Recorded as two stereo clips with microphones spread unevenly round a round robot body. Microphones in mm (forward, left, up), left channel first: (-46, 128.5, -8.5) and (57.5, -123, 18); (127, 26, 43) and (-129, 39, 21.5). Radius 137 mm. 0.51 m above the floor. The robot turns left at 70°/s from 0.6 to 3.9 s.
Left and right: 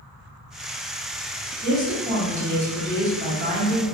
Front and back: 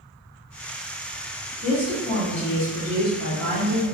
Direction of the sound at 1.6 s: 60° left.